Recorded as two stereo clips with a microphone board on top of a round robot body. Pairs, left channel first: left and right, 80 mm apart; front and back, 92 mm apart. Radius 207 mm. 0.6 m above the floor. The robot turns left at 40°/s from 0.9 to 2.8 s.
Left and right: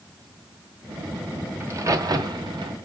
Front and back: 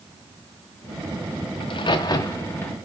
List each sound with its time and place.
1.6 s a crack: 30° right, 0.9 m; by 2.7 s 75° right, 0.9 m